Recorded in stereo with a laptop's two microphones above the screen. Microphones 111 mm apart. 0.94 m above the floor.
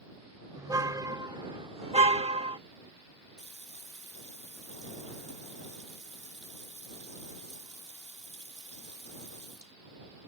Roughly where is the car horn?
Right.